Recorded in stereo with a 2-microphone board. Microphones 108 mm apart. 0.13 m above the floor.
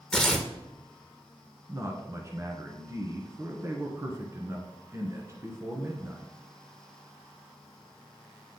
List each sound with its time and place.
0.1 s tearing paper: 5° left (ahead or behind), 1.1 m
1.7 s a man speaking: 30° right (ahead or behind), 1.2 m